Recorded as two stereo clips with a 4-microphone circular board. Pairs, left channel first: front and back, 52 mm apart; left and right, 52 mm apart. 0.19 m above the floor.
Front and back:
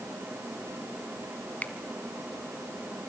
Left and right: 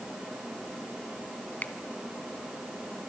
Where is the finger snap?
45° left, 1.5 m.